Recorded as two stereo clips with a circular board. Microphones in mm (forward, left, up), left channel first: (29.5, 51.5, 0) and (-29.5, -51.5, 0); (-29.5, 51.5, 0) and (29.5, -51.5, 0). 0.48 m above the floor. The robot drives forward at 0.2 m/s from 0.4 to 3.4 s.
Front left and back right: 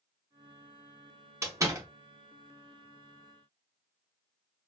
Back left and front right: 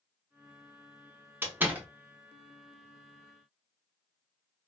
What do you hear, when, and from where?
1.4 s a door slam: 105° right, 0.7 m; by 1.9 s 120° right, 0.7 m